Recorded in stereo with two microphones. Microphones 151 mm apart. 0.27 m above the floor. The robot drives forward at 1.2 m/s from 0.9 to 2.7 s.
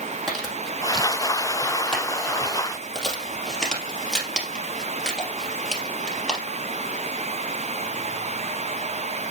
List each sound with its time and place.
0.3 s crumpling: centre (ahead or behind), 5 m; by 6.4 s 5° left (ahead or behind), 3 m